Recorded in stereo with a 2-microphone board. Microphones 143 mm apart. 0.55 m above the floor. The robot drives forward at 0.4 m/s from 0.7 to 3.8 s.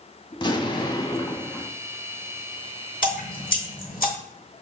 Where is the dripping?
75° left (ahead or behind), 0.9 m; by 4.1 s 85° left, 0.9 m.